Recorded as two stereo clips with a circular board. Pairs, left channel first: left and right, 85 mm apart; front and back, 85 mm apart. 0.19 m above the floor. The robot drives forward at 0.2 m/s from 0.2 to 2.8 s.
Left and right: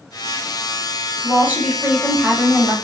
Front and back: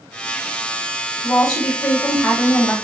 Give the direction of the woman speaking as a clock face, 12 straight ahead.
2 o'clock.